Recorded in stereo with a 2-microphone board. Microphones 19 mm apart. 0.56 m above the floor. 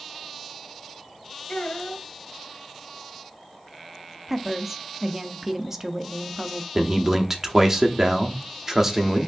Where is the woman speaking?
20° right (ahead or behind), 0.6 m.